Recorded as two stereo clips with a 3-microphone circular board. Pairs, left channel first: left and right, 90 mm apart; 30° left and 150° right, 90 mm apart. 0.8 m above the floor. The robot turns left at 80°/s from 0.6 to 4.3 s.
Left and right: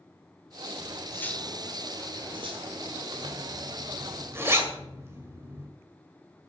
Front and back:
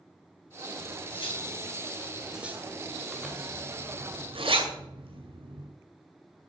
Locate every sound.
0.8 s cutlery clinking: 60° left, 1.8 m; by 3.0 s 120° right, 1.8 m
3.1 s a zipper: 60° right, 2 m; by 5.7 s 155° right, 2 m